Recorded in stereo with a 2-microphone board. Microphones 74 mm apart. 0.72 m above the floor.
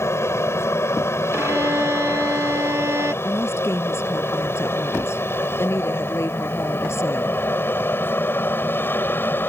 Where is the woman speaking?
35° left (ahead or behind).